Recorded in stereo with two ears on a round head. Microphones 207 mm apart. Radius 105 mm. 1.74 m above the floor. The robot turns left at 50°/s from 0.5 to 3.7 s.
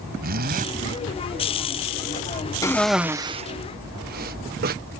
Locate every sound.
0.2 s a zipper: 45° right (ahead or behind); by 0.7 s 35° right (ahead or behind)
2.6 s a cough: 15° left (ahead or behind); by 4.8 s 40° right (ahead or behind)